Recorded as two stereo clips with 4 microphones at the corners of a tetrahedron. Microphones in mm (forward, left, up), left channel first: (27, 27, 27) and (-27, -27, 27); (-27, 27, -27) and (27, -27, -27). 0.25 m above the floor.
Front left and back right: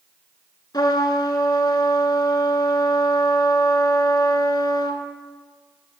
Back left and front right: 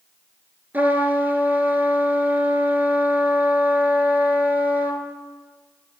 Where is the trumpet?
20° left, 1.5 m.